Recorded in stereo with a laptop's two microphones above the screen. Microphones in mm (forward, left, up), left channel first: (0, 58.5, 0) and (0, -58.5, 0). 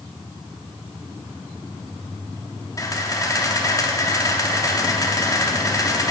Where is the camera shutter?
30° left (ahead or behind), 0.8 m.